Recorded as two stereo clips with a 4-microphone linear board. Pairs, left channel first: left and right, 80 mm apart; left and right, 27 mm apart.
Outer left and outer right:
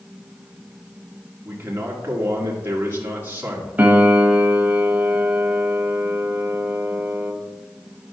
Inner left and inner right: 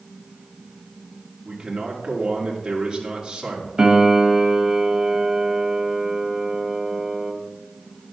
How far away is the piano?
About 1.0 m.